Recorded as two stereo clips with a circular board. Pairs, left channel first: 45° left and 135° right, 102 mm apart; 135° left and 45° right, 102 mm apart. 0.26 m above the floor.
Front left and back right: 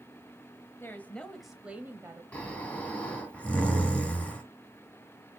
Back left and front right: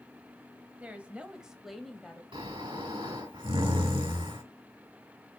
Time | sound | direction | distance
0.8 | a woman speaking | 15° left | 1.1 m
2.3 | snoring | 30° right | 2.5 m